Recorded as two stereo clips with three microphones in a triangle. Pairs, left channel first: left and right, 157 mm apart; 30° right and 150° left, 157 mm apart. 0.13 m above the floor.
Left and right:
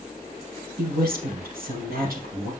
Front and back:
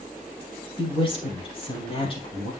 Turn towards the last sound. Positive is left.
turn(degrees=-85)